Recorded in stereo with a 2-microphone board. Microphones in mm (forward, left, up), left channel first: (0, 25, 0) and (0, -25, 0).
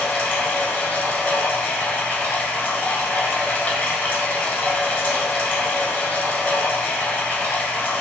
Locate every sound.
0.0 s running water: 40° left (ahead or behind), 0.9 m